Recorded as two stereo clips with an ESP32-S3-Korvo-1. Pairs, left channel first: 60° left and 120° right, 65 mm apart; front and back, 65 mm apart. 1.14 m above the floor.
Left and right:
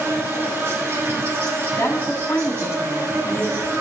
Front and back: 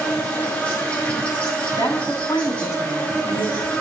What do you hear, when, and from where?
0.0 s an insect: 70° right, 2 m
1.8 s a woman speaking: 10° left, 2.5 m